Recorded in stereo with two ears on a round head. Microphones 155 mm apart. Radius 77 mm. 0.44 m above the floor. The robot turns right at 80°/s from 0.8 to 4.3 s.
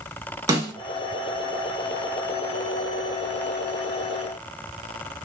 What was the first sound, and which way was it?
A snare drum, 20° right (ahead or behind).